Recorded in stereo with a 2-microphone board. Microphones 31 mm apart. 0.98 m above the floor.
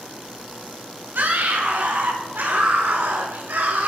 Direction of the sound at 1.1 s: 75° right (ahead or behind).